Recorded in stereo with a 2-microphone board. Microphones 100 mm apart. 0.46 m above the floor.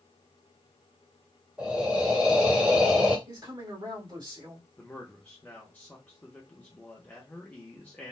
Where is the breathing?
10° right (ahead or behind), 1.5 m.